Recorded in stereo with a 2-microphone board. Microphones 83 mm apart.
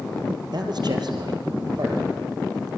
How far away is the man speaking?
About 3.5 m.